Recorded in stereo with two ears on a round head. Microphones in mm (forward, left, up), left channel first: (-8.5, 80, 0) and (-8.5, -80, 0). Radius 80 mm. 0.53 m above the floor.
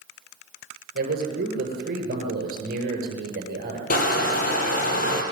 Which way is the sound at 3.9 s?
50° left (ahead or behind).